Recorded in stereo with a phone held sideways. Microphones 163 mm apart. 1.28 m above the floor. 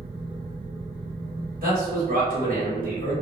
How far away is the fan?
About 1.6 m.